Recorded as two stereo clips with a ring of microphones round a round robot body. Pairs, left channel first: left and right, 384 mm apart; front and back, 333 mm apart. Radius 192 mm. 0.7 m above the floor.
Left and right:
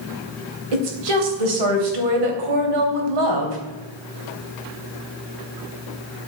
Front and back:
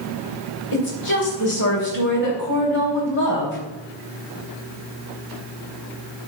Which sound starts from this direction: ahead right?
A woman speaking, at 0.7 s.